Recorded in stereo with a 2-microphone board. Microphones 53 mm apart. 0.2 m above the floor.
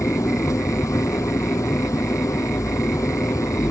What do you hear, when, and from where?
0.0 s an engine running: 80° left